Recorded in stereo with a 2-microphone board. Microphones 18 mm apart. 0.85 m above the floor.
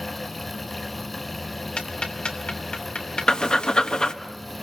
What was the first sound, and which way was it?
Ticking, 75° left (ahead or behind).